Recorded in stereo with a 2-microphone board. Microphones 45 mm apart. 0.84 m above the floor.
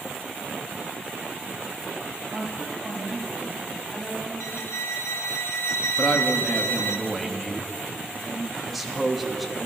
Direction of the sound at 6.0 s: 5° right (ahead or behind).